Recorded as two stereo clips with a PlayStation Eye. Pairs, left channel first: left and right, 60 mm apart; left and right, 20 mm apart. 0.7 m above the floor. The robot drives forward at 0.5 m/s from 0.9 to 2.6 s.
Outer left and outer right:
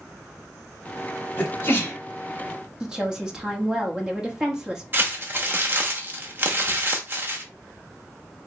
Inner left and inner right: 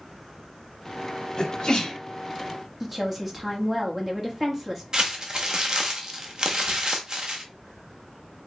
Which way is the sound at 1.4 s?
40° left (ahead or behind).